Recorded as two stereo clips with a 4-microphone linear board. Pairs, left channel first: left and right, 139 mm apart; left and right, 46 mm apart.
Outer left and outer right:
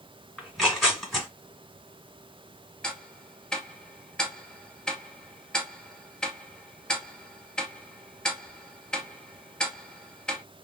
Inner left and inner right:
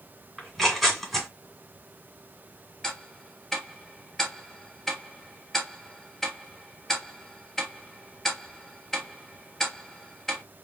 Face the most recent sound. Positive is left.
turn(degrees=5)  # may be behind; listen again after turning